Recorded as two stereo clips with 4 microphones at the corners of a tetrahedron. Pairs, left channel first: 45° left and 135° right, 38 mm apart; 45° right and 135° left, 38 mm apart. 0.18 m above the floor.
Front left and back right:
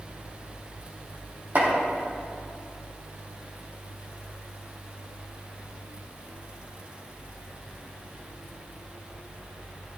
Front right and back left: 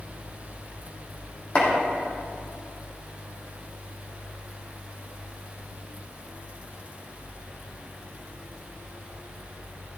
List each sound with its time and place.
1.6 s chopping: 95° right, 4 m